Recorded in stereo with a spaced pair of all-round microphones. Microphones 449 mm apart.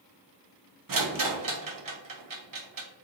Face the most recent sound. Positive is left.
turn(degrees=-50)  # may be behind; listen again after turning